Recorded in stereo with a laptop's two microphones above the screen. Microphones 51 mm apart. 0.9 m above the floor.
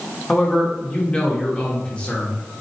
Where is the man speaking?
20° left (ahead or behind), 1.5 m.